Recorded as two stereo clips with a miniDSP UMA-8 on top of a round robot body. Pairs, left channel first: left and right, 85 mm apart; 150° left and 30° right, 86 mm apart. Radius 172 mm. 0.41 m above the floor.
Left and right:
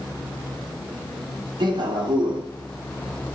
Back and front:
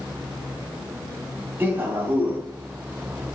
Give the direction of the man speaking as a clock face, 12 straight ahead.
3 o'clock.